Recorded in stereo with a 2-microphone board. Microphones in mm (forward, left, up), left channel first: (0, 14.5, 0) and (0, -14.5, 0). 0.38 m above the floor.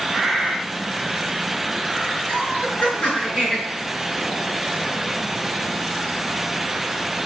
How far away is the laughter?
About 4.5 m.